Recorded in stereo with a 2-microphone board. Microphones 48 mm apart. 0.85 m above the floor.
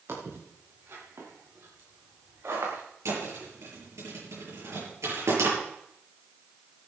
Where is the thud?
75° right (ahead or behind), 8 m.